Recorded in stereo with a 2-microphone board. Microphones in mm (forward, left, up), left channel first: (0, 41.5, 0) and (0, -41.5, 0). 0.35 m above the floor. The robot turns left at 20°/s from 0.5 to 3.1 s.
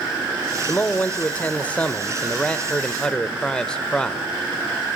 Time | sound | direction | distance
0.7 | a man speaking | 20° left (ahead or behind) | 0.8 m